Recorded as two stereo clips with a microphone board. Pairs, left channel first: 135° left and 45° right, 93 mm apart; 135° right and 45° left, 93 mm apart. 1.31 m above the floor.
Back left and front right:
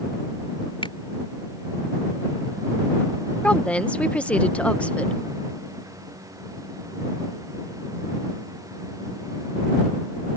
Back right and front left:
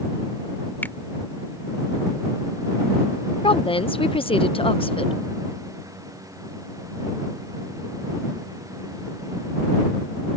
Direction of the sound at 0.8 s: 155° left.